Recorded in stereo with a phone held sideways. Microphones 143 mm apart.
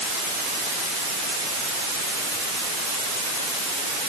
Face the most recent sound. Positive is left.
No sound to turn to.